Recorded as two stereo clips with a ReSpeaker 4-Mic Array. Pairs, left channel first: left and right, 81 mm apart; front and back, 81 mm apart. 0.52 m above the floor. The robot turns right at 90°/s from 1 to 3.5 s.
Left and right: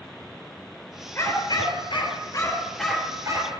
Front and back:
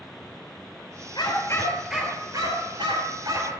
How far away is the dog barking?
About 3.5 m.